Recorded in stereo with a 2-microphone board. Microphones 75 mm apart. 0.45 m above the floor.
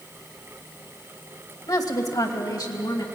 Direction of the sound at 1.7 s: 60° left (ahead or behind).